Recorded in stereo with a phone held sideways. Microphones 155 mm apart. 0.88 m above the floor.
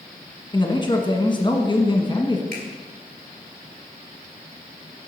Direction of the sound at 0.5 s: 30° left (ahead or behind).